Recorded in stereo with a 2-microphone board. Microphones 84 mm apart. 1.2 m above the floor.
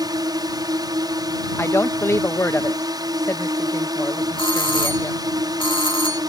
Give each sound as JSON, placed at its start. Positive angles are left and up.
{"t": 0.0, "sound": "a drone", "side_deg": -55}
{"t": 1.6, "sound": "a woman speaking", "side_deg": 30}
{"t": 4.4, "sound": "a doorbell", "side_deg": 75}